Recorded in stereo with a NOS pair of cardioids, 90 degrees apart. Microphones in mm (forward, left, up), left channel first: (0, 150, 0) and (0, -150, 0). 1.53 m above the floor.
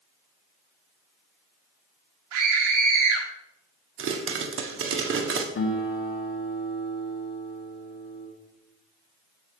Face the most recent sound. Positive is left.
turn(degrees=40)